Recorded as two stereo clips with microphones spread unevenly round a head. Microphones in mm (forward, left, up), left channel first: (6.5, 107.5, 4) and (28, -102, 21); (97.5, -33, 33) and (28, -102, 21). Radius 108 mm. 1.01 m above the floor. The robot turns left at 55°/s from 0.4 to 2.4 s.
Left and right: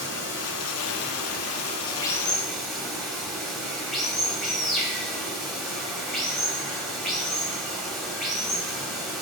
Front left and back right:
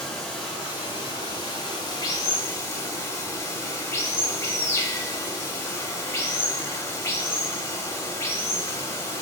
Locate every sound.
0.0 s running water: 110° left, 1.1 m; by 9.2 s straight ahead, 1.1 m